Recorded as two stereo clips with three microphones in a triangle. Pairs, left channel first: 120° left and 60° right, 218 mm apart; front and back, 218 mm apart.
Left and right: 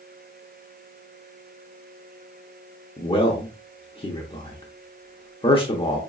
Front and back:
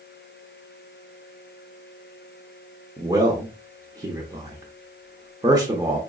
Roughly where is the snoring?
No snoring in this recording.